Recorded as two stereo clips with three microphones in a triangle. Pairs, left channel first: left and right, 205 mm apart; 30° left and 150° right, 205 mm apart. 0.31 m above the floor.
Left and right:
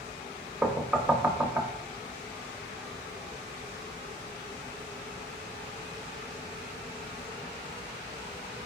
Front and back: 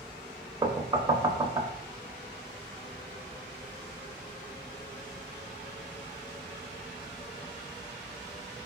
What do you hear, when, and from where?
0.6 s knocking: 165° right, 0.6 m